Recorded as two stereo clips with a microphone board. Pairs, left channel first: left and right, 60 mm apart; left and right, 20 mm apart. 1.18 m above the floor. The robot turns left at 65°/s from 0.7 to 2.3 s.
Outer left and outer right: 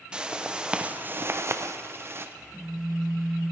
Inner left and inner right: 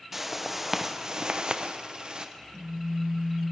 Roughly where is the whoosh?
Ahead.